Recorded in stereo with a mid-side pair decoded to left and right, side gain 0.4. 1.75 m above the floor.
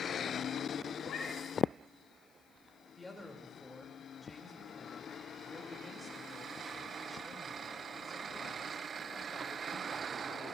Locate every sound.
1.0 s a cat meowing: 55° left, 6 m
3.0 s a man speaking: 10° left, 4.5 m